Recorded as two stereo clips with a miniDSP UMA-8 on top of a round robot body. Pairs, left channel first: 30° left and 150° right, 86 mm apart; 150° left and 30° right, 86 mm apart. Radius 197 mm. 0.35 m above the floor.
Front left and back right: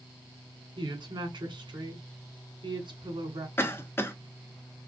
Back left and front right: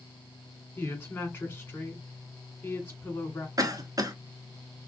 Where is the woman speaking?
145° right, 2.5 m.